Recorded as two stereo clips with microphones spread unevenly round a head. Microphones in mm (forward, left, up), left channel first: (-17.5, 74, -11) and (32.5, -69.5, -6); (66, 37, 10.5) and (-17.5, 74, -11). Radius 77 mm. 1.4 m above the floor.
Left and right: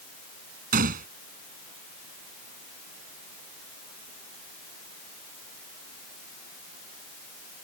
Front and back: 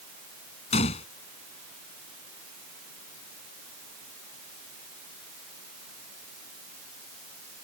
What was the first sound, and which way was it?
A gunshot, 35° right.